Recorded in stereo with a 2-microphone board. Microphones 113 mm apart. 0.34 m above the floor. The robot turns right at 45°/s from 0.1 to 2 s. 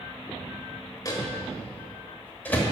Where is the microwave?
30° left (ahead or behind), 1.2 m; by 2.6 s 15° left (ahead or behind), 1.2 m.